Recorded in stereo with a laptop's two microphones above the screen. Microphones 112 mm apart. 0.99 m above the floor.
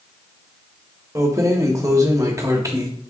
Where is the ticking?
I don't hear ticking.